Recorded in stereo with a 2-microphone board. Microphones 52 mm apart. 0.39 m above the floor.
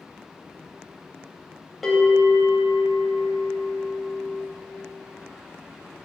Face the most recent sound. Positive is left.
turn(degrees=5)  # may be behind; listen again after turning